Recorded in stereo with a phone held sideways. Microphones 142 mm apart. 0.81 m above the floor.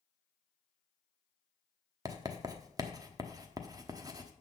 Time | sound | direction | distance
2.0 | writing | 25° right (ahead or behind) | 0.9 m